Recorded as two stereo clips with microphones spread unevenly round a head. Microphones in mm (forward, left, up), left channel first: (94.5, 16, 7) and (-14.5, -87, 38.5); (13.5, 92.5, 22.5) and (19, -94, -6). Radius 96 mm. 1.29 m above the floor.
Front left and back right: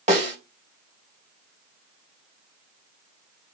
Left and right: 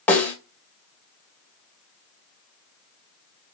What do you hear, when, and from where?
0.1 s a snare drum: 170° left, 2 m